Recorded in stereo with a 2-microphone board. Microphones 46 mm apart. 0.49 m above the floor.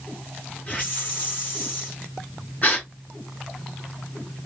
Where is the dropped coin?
No dropped coin in this recording.